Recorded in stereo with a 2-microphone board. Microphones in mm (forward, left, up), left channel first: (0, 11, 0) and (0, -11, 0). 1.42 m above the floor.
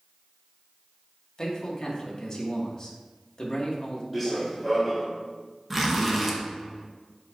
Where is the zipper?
10° right (ahead or behind), 1.2 m.